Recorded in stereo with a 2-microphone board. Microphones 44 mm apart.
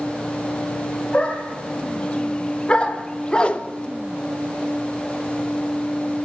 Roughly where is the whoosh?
Left.